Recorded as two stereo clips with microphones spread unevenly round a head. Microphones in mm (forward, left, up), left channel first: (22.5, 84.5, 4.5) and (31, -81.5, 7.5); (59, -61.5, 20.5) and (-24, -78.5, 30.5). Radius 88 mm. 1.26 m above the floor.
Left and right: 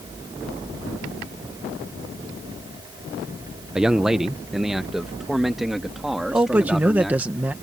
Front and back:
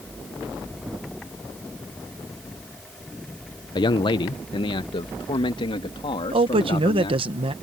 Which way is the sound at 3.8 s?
Straight ahead.